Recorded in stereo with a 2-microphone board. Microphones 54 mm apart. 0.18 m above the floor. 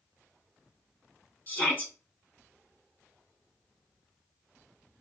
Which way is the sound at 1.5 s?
30° left (ahead or behind).